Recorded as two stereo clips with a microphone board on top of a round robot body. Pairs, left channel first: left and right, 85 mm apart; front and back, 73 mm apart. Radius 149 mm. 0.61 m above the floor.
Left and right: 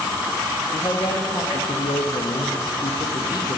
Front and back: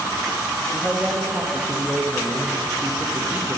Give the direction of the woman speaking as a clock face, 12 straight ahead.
8 o'clock.